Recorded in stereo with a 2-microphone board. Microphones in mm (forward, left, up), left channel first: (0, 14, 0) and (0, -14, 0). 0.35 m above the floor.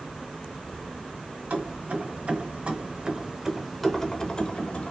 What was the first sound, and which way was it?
Keys jangling, 60° right (ahead or behind).